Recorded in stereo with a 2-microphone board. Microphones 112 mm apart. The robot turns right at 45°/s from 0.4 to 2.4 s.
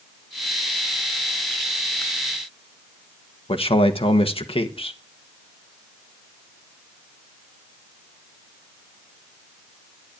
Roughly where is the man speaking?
Left.